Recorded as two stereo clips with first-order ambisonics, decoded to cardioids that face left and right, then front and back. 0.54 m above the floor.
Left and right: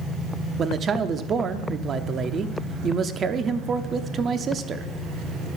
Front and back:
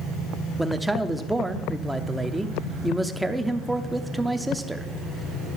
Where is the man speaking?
100° right, 0.6 m.